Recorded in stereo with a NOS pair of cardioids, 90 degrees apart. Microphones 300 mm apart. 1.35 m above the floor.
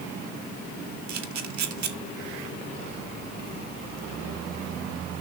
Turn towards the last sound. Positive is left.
turn(degrees=-65)